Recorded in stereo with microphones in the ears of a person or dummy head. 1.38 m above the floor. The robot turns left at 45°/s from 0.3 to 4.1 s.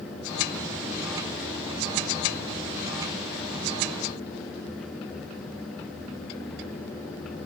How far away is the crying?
I don't hear crying.